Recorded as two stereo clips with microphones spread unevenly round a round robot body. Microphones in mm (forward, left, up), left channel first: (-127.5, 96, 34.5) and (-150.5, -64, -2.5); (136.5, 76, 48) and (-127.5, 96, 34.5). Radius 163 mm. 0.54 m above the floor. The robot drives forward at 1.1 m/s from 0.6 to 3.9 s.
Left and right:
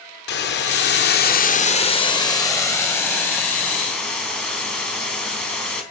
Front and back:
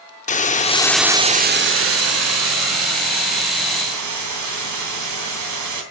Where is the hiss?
60° left, 1.0 m; by 5.8 s 165° left, 3.5 m.